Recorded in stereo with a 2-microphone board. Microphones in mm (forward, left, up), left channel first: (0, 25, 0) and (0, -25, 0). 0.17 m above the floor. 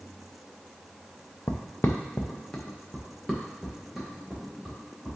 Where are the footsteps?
75° left (ahead or behind), 0.9 m; by 5.2 s 5° right (ahead or behind), 3.5 m.